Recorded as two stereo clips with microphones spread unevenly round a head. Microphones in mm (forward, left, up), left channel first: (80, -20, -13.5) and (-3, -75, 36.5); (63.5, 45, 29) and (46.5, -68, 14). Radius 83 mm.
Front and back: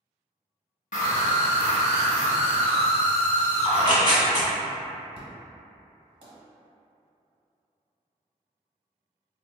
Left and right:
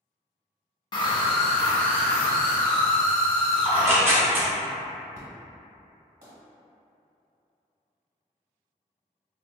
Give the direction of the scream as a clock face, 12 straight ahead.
10 o'clock.